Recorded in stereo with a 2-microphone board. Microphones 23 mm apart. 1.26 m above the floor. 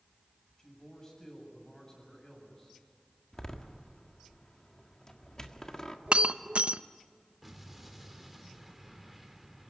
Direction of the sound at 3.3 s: 30° left (ahead or behind).